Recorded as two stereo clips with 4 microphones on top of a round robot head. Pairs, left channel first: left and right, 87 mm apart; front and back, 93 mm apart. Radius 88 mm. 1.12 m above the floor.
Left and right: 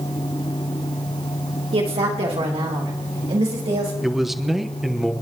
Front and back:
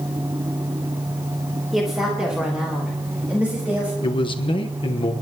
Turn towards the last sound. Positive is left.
turn(degrees=-5)